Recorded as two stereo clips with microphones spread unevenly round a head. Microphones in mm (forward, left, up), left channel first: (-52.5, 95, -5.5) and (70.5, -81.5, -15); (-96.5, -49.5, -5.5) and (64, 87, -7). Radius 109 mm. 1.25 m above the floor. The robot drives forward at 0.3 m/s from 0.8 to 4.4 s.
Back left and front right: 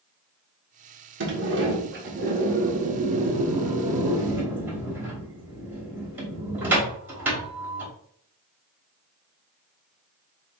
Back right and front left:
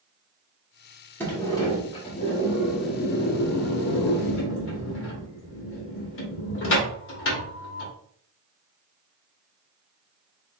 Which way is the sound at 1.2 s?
60° right.